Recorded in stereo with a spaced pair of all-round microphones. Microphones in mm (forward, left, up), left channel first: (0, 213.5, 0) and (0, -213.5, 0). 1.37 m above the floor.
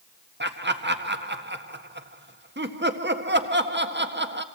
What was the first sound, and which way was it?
Laughter, 25° right (ahead or behind).